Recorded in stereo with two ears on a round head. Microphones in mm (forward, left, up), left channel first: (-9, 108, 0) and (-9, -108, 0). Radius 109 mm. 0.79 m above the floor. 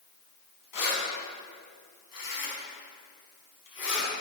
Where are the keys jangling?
85° left, 4.5 m; by 4.1 s 55° left (ahead or behind), 4.5 m.